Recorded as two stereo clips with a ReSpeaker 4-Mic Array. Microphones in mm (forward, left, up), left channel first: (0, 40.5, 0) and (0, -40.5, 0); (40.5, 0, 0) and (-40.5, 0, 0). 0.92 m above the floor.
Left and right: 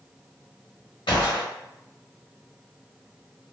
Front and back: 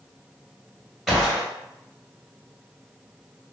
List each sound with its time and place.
1.1 s a gunshot: 95° left, 1.3 m